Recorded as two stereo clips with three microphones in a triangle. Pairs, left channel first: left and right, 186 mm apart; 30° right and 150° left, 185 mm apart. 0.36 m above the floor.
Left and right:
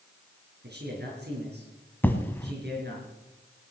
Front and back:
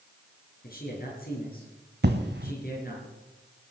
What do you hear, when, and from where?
0.6 s a man speaking: 65° right, 6 m
2.0 s an explosion: 170° left, 1.3 m